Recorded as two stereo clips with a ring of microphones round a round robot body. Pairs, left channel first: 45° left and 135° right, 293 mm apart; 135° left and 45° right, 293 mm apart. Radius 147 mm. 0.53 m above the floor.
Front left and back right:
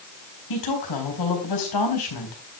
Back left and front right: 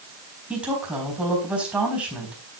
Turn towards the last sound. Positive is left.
turn(degrees=40)